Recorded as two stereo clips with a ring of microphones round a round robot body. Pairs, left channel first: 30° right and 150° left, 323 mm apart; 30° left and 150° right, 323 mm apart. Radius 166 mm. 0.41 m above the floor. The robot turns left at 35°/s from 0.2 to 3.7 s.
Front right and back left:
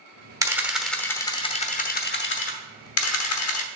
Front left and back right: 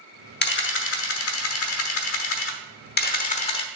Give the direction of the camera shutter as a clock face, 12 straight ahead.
10 o'clock.